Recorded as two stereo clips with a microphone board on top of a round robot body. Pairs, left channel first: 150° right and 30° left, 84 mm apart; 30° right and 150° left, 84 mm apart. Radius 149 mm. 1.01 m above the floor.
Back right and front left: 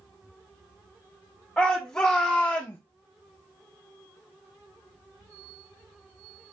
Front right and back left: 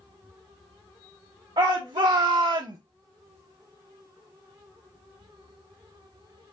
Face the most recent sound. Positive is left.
turn(degrees=155)